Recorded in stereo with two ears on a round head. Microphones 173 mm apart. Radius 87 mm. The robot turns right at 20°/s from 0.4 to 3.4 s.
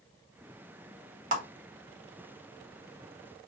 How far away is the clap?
About 1.0 m.